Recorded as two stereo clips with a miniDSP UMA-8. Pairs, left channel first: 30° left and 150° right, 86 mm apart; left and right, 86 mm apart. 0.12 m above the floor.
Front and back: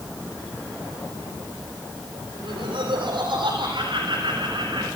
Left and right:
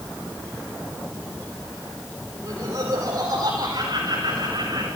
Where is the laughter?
125° right, 4.5 m; by 4.9 s 115° right, 6.5 m.